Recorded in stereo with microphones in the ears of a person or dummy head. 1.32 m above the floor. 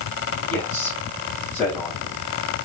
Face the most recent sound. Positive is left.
turn(degrees=20)  # may be behind; listen again after turning